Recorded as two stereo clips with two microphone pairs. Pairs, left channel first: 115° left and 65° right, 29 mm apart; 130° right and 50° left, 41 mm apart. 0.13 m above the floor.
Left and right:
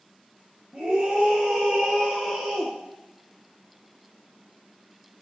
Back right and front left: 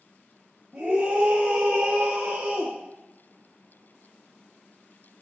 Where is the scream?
15° right, 2.5 m; by 2.8 s 10° left, 3.5 m.